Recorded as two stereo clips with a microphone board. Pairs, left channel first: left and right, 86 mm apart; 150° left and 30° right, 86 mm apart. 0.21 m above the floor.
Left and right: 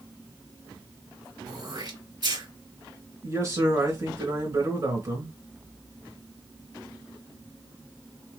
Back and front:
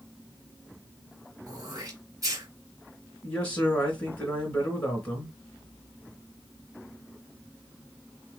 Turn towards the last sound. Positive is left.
turn(degrees=-140)